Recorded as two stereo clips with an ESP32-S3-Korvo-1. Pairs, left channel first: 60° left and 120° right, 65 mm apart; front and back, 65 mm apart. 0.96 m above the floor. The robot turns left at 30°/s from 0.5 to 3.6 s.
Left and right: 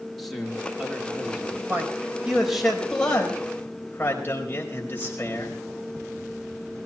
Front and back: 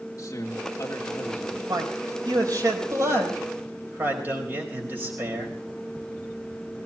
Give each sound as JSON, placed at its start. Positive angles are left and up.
{"t": 0.2, "sound": "a man speaking", "azimuth_deg": -30, "distance_m": 2.5}
{"t": 1.7, "sound": "a man speaking", "azimuth_deg": 175, "distance_m": 4.5}